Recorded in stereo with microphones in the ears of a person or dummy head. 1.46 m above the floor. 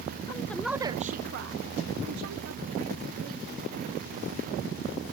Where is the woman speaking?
25° left (ahead or behind), 0.9 m; by 3.4 s 80° right, 2.5 m.